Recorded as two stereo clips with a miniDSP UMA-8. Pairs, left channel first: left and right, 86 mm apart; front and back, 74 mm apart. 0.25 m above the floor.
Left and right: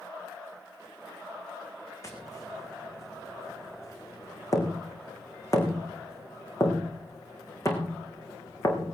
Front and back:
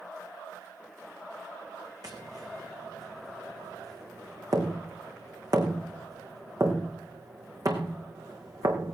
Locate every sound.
2.0 s tapping: 140° left, 3.5 m